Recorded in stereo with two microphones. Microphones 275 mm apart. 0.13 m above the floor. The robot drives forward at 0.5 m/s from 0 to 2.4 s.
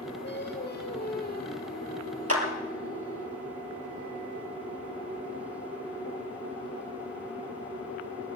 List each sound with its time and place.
0.2 s singing: 40° left (ahead or behind), 2.5 m; by 3.3 s 30° left (ahead or behind), 3 m
2.3 s a clap: 60° right (ahead or behind), 3 m